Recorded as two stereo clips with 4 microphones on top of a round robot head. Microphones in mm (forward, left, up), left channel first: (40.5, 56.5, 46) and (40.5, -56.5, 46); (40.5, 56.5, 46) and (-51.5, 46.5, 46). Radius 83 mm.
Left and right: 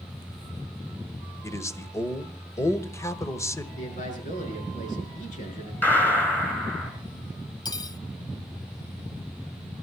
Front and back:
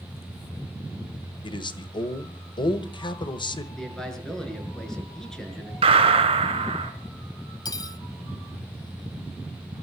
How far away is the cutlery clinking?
About 1.0 m.